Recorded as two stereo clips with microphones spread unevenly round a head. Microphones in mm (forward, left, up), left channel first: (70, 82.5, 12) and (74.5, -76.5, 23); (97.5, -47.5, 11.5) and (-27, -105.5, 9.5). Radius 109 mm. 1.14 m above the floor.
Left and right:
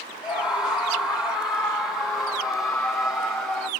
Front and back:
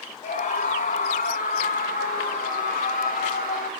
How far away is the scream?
About 4 m.